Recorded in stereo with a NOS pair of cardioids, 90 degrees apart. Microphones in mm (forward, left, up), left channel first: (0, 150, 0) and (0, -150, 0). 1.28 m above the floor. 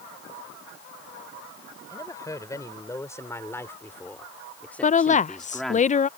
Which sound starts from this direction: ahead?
A woman speaking, at 1.9 s.